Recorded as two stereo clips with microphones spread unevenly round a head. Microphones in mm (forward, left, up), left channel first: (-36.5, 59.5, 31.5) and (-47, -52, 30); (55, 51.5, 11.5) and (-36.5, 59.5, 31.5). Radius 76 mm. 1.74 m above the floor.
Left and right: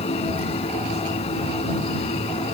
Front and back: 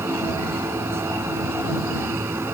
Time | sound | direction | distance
0.0 | a machine running | 115° left | ?